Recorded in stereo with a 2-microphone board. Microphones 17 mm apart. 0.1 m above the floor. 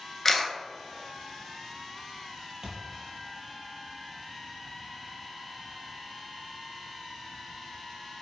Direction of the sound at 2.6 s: 40° right (ahead or behind).